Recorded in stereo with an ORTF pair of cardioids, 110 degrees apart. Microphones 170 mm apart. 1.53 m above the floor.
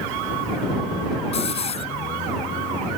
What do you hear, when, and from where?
1.3 s a hiss: 40° left